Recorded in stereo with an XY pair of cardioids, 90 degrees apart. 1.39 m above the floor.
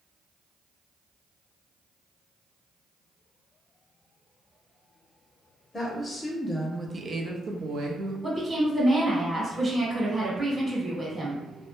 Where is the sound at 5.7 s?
30° left, 0.8 m; by 8.1 s 75° right, 0.9 m.